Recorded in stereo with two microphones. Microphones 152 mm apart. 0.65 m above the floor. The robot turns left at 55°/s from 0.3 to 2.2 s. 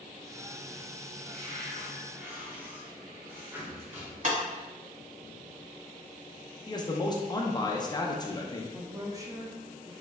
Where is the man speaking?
25° left (ahead or behind), 0.5 m.